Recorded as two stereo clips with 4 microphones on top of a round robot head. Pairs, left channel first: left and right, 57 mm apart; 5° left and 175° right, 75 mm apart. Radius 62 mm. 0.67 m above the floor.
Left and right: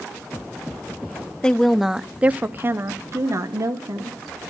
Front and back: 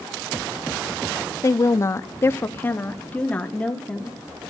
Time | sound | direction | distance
1.4 | a woman speaking | 20° left | 0.8 m